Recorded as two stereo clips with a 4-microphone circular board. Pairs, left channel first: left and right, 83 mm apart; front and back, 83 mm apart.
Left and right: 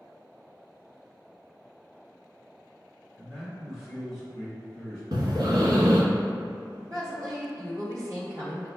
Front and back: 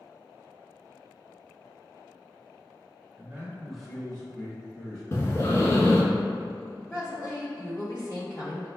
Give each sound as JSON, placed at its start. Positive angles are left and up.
{"t": 3.2, "sound": "a man speaking", "azimuth_deg": -170, "distance_m": 1.1}
{"t": 5.1, "sound": "breathing", "azimuth_deg": -55, "distance_m": 0.8}
{"t": 6.9, "sound": "a woman speaking", "azimuth_deg": -50, "distance_m": 1.8}